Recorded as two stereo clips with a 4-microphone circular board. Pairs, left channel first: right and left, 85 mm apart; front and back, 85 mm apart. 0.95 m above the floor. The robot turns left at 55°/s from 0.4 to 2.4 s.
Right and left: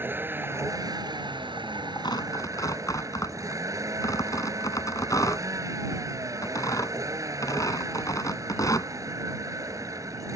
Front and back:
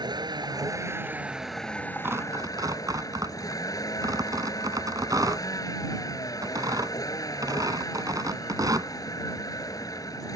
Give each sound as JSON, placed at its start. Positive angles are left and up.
{"t": 0.0, "sound": "a vehicle", "azimuth_deg": 150}
{"t": 2.0, "sound": "tearing paper", "azimuth_deg": -115}